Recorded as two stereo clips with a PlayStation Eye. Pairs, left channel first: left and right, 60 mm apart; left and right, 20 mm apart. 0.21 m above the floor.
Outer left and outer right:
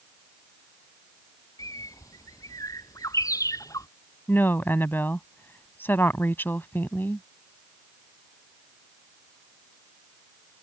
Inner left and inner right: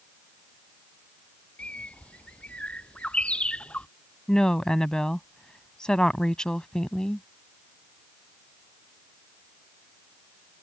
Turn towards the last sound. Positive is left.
turn(degrees=35)  # may be behind; listen again after turning